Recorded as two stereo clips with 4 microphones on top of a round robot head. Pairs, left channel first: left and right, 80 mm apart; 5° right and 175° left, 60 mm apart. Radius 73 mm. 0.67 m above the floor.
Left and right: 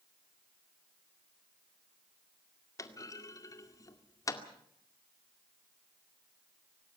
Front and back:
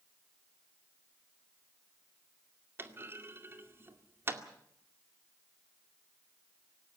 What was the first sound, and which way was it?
A clunk, 130° left.